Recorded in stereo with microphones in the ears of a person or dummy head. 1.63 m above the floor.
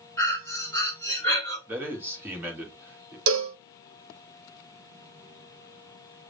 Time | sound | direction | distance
0.2 | breathing | 15° left (ahead or behind) | 2.5 m
1.7 | a man speaking | 5° right (ahead or behind) | 2 m
3.3 | a cowbell | 75° right (ahead or behind) | 0.8 m